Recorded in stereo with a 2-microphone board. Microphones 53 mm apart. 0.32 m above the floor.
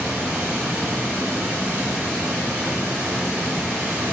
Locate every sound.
0.0 s running water: 30° right (ahead or behind), 1.0 m